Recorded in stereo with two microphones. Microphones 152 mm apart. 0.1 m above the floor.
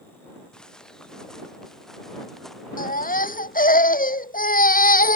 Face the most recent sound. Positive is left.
turn(degrees=70)  # may be behind; listen again after turning